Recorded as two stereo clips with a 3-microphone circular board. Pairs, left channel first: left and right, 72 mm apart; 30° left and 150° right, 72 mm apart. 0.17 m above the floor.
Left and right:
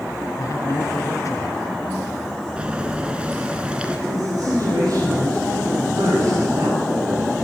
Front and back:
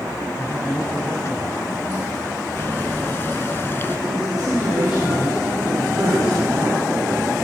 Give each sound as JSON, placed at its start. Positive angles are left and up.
{"t": 0.4, "sound": "a man speaking", "azimuth_deg": 70, "distance_m": 2.5}
{"t": 2.6, "sound": "boiling", "azimuth_deg": -20, "distance_m": 1.7}
{"t": 4.1, "sound": "a man speaking", "azimuth_deg": -120, "distance_m": 9.5}